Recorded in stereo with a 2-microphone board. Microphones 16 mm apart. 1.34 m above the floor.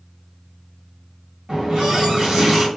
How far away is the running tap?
About 1.3 m.